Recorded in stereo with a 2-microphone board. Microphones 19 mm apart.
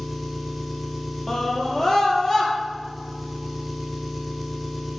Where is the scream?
30° left (ahead or behind), 3.5 m.